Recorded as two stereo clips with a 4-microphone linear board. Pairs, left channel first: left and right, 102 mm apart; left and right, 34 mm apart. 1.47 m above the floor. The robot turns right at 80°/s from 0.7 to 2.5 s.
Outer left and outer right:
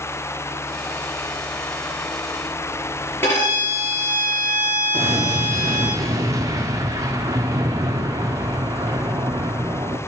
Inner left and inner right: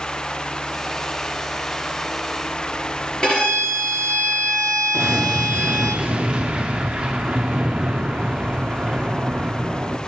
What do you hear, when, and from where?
3.2 s a violin: 20° left (ahead or behind), 4.5 m
4.9 s an explosion: 30° right (ahead or behind), 0.8 m